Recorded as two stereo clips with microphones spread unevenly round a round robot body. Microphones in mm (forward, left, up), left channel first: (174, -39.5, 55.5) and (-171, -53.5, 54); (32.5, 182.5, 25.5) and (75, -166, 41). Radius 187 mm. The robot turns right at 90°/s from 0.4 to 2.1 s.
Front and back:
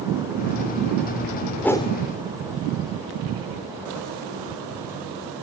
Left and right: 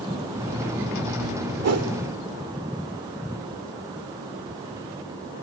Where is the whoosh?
85° right, 1.7 m; by 1.9 s 55° right, 1.7 m.